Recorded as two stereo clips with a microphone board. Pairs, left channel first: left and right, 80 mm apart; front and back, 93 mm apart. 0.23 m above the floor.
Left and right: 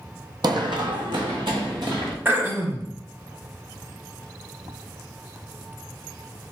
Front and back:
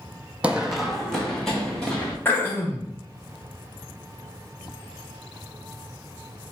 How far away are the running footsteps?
About 0.5 m.